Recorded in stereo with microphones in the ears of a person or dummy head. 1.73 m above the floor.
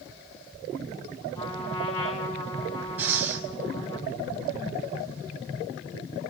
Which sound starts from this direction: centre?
Breathing, at 3.0 s.